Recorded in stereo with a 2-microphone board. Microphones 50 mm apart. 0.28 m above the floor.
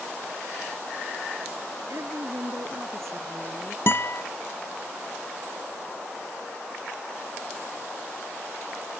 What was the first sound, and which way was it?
A woman speaking, 70° right (ahead or behind).